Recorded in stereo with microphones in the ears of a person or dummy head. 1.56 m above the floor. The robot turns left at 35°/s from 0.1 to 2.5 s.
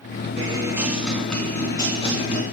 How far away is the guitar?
About 4 m.